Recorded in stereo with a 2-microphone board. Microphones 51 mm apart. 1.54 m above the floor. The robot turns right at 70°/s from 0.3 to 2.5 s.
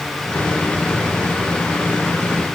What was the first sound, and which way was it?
Only background noise.